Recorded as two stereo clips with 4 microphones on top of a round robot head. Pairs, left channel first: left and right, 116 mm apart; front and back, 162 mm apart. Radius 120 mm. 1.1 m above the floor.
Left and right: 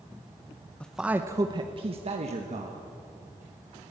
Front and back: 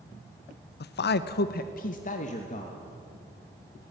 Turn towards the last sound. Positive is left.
turn(degrees=-60)